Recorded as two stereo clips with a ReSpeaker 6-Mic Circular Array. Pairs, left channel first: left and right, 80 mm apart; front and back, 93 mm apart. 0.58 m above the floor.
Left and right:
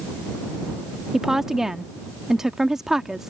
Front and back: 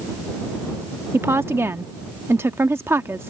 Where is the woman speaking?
165° right.